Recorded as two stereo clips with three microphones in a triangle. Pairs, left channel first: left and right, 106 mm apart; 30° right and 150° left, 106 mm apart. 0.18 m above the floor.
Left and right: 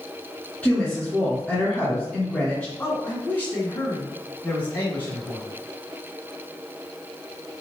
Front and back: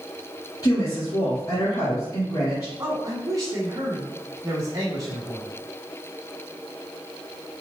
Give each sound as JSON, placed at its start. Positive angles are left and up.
{"t": 0.6, "sound": "a woman speaking", "azimuth_deg": 10, "distance_m": 2.5}
{"t": 2.8, "sound": "a man speaking", "azimuth_deg": 145, "distance_m": 1.3}